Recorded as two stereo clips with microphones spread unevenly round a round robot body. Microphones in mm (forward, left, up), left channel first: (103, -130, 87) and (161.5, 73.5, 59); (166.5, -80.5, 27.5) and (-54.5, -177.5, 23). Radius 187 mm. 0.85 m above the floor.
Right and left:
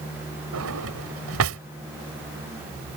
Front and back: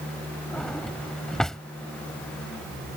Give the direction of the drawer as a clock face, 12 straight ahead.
8 o'clock.